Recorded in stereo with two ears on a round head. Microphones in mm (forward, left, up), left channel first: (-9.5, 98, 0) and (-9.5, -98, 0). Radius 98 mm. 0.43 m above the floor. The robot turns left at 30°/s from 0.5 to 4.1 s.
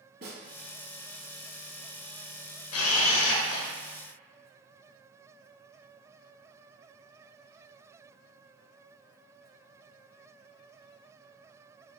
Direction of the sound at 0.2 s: 50° right (ahead or behind).